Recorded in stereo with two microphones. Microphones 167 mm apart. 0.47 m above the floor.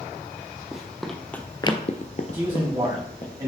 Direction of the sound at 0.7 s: 5° right (ahead or behind).